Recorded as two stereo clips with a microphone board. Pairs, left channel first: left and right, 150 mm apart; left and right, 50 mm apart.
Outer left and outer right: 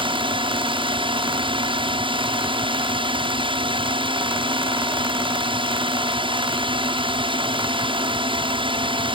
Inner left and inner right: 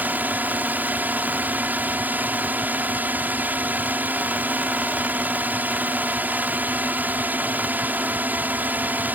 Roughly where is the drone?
Right.